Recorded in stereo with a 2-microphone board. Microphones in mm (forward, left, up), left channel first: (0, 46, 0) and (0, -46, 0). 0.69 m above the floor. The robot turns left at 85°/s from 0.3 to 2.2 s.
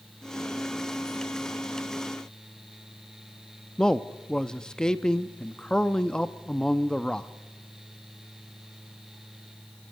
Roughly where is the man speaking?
Centre.